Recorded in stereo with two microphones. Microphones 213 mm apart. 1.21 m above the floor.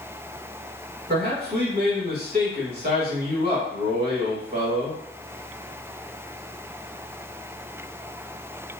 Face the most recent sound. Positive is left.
turn(degrees=-50)  # may be behind; listen again after turning